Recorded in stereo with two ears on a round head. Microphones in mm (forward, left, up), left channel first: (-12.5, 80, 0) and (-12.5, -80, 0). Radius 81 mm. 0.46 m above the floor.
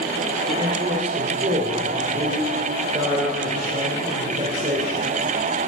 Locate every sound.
0.5 s a man speaking: 35° right (ahead or behind), 1.8 m